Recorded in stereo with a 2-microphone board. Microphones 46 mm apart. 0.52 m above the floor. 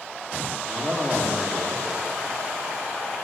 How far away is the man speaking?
About 1.2 m.